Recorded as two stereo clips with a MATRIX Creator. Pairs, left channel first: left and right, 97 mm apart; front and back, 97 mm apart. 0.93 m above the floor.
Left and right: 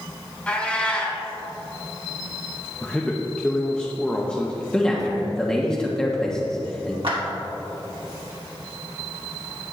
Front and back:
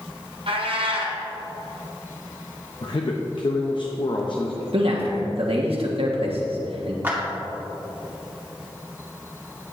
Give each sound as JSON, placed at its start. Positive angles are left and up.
{"t": 0.5, "sound": "a cat meowing", "azimuth_deg": 165, "distance_m": 1.8}
{"t": 2.8, "sound": "a man speaking", "azimuth_deg": 10, "distance_m": 0.8}
{"t": 4.7, "sound": "a man speaking", "azimuth_deg": 170, "distance_m": 1.2}
{"t": 7.0, "sound": "a clap", "azimuth_deg": -110, "distance_m": 2.5}